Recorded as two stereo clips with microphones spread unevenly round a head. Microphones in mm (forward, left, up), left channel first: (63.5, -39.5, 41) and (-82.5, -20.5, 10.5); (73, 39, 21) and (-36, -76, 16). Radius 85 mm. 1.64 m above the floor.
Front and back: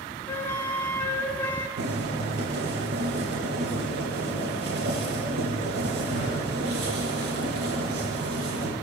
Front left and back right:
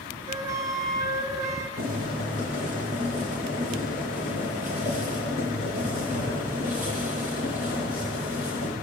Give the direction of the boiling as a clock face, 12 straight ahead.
6 o'clock.